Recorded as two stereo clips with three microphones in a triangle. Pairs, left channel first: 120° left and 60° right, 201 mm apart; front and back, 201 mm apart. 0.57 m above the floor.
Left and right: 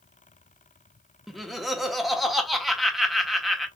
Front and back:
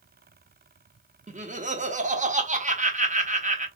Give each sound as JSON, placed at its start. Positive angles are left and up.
{"t": 1.3, "sound": "laughter", "azimuth_deg": -150, "distance_m": 1.0}